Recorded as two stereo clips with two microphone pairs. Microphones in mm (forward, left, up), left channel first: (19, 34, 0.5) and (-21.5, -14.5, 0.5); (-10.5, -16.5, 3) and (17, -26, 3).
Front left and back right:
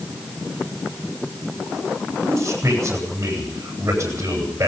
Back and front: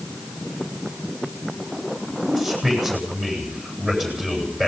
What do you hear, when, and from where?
2.2 s a man speaking: 85° right, 10 m